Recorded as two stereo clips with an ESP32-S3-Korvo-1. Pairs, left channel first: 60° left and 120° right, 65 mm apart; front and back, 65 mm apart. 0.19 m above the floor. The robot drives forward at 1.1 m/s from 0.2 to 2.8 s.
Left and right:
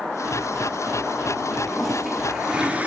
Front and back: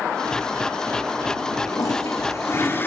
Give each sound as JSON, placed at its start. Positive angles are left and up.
{"t": 1.7, "sound": "a toilet flushing", "azimuth_deg": -30, "distance_m": 2.0}